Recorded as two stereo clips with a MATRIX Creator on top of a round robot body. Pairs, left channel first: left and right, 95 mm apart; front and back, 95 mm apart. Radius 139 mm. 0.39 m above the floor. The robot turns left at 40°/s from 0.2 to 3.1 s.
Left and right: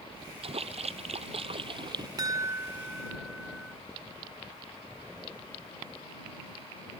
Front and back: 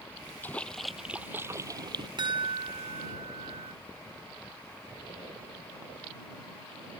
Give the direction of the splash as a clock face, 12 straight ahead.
2 o'clock.